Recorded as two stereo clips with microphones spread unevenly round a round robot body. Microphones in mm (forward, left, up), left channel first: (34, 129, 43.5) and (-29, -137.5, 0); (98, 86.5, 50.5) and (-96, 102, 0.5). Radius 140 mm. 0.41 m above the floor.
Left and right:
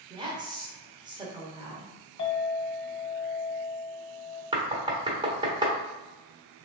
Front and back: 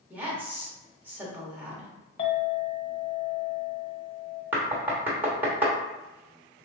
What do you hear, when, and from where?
0.1 s a woman speaking: 140° right, 1.2 m
2.2 s a clink: 25° left, 1.4 m
4.5 s knocking: 145° right, 1.0 m